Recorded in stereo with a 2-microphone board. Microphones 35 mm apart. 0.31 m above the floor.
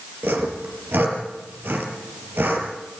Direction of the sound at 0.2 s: 75° right (ahead or behind).